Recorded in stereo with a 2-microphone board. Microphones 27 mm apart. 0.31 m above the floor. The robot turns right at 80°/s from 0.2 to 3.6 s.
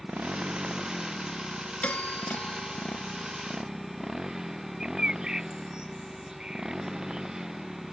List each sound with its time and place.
0.0 s a motorcycle: 75° right (ahead or behind); by 7.9 s 25° right (ahead or behind)
1.8 s a doorbell: 60° left; by 4.5 s 155° right
4.8 s a bird: 25° right (ahead or behind)